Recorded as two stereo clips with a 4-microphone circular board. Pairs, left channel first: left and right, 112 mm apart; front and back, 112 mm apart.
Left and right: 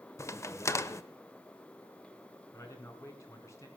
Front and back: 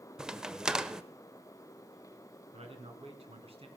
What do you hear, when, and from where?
0.2 s a crack: 105° left, 0.6 m
2.5 s a man speaking: 155° left, 2.5 m